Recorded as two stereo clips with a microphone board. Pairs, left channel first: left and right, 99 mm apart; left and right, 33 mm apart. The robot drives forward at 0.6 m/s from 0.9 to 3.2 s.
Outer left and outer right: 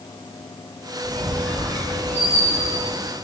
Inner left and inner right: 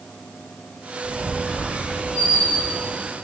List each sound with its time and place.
1.0 s a squeak: 15° left (ahead or behind), 3 m; by 2.9 s 10° left (ahead or behind), 4 m